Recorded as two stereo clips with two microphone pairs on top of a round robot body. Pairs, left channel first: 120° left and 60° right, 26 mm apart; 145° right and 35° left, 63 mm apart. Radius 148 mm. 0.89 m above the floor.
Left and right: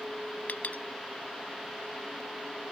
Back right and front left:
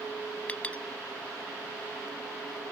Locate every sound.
0.5 s a clink: 145° left